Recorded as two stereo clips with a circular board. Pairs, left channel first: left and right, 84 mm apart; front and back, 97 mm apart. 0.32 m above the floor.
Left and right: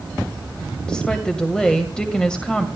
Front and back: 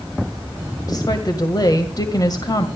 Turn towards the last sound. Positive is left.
turn(degrees=15)